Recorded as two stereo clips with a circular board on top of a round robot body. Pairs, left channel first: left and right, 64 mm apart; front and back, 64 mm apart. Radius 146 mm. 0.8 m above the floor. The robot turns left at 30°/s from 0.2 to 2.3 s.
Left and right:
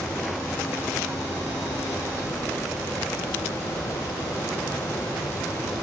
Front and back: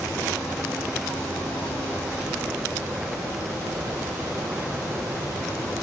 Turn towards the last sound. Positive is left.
No sound to turn to.